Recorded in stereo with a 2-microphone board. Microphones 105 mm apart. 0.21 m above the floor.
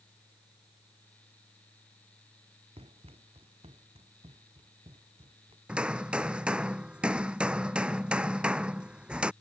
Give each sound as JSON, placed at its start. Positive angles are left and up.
{"t": 2.8, "sound": "running footsteps", "side_deg": -70}
{"t": 5.7, "sound": "hammering", "side_deg": -10}